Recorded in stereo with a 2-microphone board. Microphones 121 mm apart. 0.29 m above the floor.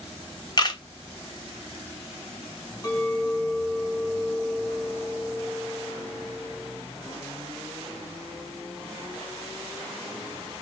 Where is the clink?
35° left (ahead or behind), 1.4 m.